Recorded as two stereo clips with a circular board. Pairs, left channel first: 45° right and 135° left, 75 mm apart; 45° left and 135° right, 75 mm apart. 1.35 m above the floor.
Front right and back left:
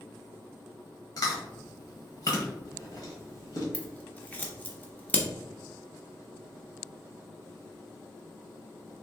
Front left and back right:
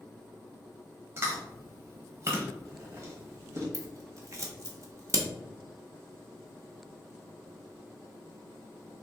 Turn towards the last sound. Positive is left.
turn(degrees=-110)